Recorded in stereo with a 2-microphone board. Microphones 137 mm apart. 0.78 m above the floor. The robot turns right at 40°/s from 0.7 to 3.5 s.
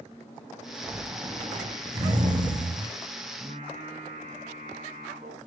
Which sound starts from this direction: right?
Singing, at 3.4 s.